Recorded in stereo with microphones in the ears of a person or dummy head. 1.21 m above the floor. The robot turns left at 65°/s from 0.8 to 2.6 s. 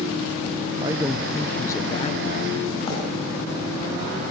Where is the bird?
40° left (ahead or behind), 9 m.